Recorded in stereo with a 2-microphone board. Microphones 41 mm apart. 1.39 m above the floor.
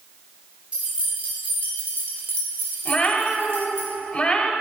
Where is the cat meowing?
25° left (ahead or behind), 2.0 m.